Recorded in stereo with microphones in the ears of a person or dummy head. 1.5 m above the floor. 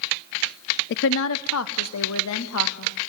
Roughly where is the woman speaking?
Left.